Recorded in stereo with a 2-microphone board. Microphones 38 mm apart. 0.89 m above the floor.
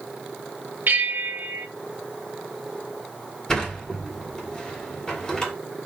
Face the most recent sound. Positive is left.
turn(degrees=20)  # may be behind; listen again after turning